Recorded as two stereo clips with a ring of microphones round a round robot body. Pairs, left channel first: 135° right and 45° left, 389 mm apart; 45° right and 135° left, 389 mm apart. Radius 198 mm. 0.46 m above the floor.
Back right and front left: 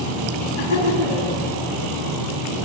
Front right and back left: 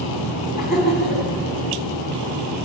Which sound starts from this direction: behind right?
Laughter, at 0.6 s.